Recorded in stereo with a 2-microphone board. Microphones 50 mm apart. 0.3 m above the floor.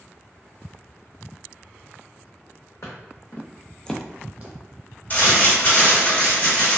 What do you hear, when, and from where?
2.8 s footsteps: 70° left (ahead or behind), 1.2 m; by 4.5 s 40° right (ahead or behind), 0.8 m
5.1 s crumpling: 40° left (ahead or behind), 1.7 m